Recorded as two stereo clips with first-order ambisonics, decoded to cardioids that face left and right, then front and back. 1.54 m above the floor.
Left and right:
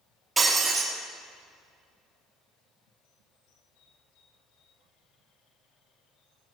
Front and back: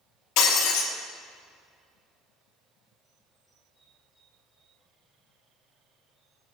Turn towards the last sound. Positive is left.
turn(degrees=-15)